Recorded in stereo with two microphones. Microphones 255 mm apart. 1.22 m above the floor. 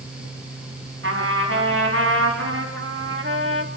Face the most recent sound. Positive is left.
turn(degrees=-50)  # may be behind; listen again after turning